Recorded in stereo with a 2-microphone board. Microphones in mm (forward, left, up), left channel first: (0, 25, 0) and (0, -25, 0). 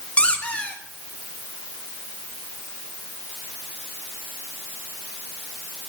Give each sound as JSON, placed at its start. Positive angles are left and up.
{"t": 0.2, "sound": "a squeak", "side_deg": 25, "distance_m": 1.6}